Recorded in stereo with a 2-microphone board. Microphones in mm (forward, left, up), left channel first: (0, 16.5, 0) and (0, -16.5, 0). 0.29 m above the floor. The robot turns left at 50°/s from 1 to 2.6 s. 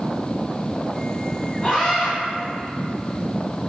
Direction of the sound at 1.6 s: 35° left (ahead or behind).